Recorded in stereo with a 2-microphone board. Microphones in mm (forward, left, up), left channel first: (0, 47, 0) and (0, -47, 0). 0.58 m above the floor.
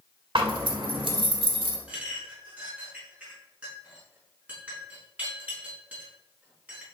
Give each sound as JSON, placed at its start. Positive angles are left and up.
{"t": 0.3, "sound": "a zipper", "side_deg": -65, "distance_m": 2.5}
{"t": 1.9, "sound": "a clink", "side_deg": -15, "distance_m": 5.0}